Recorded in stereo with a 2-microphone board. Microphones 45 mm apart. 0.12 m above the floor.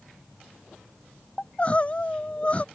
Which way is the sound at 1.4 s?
30° left (ahead or behind).